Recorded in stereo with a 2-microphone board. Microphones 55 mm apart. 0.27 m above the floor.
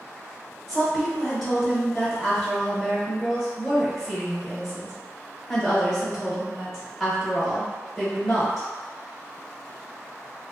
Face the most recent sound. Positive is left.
turn(degrees=5)  # may be behind; listen again after turning